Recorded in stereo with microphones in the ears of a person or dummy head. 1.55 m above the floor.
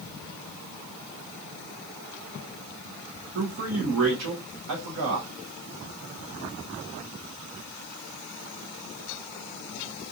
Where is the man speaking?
65° right (ahead or behind), 1.1 m.